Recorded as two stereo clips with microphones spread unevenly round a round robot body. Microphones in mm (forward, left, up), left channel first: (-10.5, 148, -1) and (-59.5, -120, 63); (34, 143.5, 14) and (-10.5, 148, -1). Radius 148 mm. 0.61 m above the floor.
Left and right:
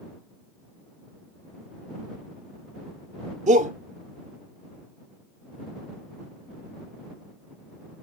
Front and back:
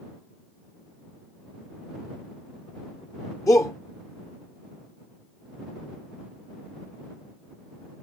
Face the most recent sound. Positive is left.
turn(degrees=-30)